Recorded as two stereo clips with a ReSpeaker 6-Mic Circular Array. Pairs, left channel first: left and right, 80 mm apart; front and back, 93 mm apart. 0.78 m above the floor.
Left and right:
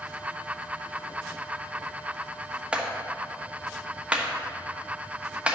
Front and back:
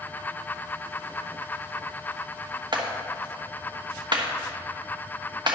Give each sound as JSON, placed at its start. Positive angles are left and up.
{"t": 2.7, "sound": "a clap", "azimuth_deg": -160, "distance_m": 1.1}